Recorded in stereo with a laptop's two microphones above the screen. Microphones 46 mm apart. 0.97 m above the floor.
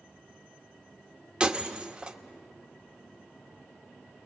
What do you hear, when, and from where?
1.4 s breaking glass: 20° right (ahead or behind), 1.0 m